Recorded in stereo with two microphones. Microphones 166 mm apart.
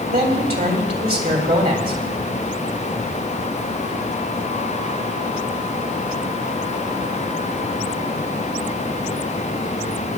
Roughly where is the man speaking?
Right.